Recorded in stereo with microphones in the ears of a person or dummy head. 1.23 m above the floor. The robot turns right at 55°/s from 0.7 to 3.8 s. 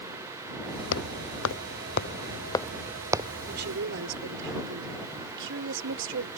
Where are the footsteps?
70° left (ahead or behind); by 3.3 s 25° right (ahead or behind).